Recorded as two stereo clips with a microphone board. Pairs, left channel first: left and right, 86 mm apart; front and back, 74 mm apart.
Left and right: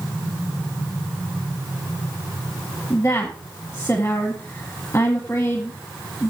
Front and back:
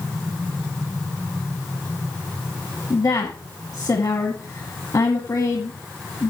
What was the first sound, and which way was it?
A woman speaking, 30° left.